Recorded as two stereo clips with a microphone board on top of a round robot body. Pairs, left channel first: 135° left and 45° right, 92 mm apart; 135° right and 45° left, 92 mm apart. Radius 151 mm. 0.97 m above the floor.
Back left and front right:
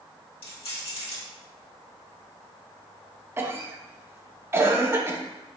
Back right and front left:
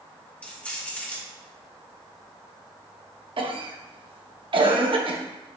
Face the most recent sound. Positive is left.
turn(degrees=20)